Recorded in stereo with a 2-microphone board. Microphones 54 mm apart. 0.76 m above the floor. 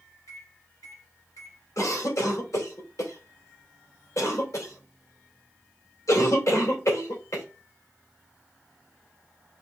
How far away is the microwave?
About 2.5 m.